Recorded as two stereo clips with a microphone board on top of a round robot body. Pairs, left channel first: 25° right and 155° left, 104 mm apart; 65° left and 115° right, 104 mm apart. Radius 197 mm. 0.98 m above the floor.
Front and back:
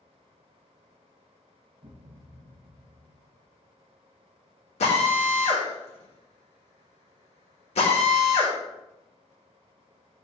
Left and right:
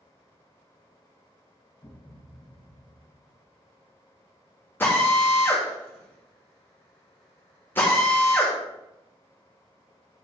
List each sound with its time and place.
1.8 s a thud: 130° left, 0.8 m
4.8 s a drill: 5° right, 1.5 m